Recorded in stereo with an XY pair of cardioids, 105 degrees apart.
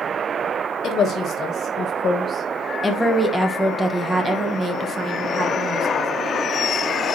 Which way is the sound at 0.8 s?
55° left.